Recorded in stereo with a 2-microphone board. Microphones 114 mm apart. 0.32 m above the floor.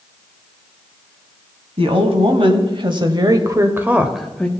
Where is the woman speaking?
60° right (ahead or behind), 1.9 m; by 4.5 s 10° left (ahead or behind), 0.9 m.